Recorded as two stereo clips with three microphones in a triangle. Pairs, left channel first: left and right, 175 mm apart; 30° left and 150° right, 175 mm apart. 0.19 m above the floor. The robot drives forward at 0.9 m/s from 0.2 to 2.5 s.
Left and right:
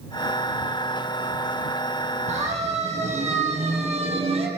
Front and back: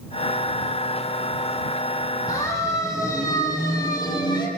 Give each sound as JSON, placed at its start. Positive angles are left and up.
{"t": 2.3, "sound": "a siren", "azimuth_deg": -40, "distance_m": 6.5}